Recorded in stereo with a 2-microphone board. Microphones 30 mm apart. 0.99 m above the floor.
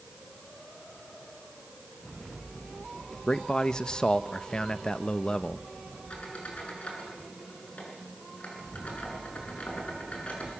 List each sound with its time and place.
3.3 s a man speaking: 25° left (ahead or behind), 0.9 m
6.1 s a squeak: 50° left (ahead or behind), 6.5 m